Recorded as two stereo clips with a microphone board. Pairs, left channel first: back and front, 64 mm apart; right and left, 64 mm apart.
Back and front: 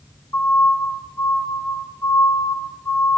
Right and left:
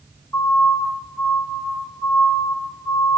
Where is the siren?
140° right, 5 m; by 3.2 s 130° right, 3 m.